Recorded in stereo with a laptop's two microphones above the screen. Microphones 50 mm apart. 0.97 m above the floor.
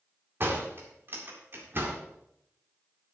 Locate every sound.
0.4 s a door slam: 45° right (ahead or behind), 1.9 m